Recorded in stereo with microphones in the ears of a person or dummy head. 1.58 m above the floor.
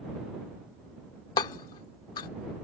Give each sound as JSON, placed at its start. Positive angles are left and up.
{"t": 1.4, "sound": "hammering", "side_deg": 25}